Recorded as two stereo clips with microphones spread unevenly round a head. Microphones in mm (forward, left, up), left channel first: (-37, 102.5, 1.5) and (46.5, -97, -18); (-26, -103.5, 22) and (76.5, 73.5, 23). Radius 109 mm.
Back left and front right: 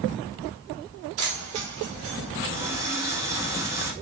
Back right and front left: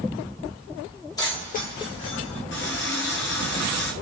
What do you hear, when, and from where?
1.2 s keys jangling: 50° right, 1.4 m; by 2.4 s 110° right, 2.0 m
2.5 s a running tap: 145° right, 1.2 m